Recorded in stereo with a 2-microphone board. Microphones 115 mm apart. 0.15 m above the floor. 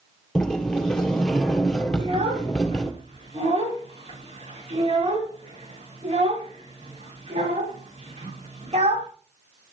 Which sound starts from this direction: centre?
A sliding door, at 0.3 s.